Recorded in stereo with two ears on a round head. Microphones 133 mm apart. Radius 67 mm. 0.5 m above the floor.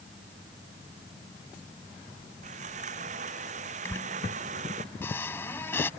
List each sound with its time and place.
2.4 s sawing: 55° right (ahead or behind)
3.9 s a squeak: 15° left (ahead or behind)